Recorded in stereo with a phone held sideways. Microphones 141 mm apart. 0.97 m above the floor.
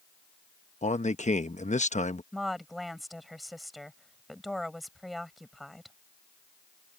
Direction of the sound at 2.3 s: Centre (ahead or behind).